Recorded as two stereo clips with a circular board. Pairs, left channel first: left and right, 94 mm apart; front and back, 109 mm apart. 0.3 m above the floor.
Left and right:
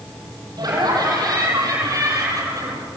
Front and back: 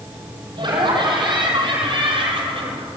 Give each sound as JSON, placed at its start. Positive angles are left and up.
{"t": 0.6, "sound": "laughter", "azimuth_deg": -135, "distance_m": 9.0}